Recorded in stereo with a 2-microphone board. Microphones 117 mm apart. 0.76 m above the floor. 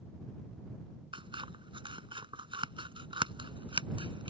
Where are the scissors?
45° right (ahead or behind).